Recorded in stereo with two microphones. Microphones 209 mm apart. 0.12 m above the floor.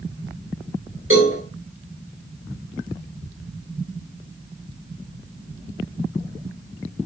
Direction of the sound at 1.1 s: 70° right (ahead or behind).